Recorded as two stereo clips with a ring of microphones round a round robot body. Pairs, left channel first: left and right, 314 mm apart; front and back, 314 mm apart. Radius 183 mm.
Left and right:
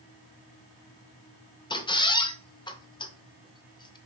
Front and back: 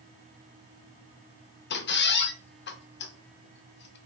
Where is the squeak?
25° left, 0.7 m.